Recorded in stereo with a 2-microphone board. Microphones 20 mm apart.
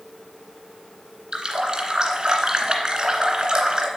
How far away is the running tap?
About 1.8 m.